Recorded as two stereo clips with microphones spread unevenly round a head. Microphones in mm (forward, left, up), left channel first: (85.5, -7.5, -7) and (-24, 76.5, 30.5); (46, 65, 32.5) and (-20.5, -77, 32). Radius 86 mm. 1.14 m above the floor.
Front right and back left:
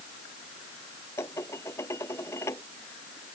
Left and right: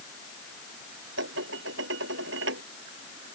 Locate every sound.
1.2 s dishes clattering: 115° right